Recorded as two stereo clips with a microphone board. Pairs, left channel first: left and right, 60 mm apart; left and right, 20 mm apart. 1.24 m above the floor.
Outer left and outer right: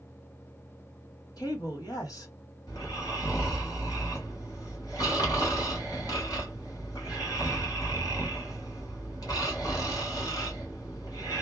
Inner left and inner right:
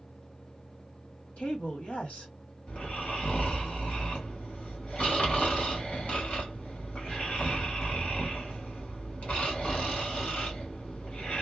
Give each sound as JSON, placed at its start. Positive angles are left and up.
{"t": 1.4, "sound": "a woman speaking", "side_deg": 80, "distance_m": 1.2}
{"t": 2.7, "sound": "snoring", "side_deg": 75, "distance_m": 1.6}